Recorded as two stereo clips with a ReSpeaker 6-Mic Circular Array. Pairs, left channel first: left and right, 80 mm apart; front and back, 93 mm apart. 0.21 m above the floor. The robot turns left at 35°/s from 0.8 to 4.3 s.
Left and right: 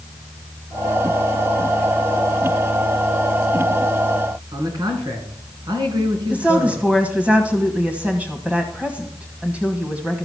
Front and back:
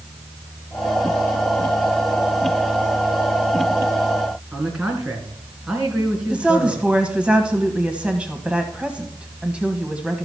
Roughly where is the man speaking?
Right.